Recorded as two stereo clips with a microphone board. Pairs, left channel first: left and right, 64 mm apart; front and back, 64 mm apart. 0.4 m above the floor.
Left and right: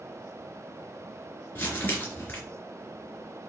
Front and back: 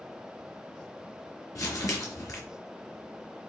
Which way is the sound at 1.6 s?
30° left.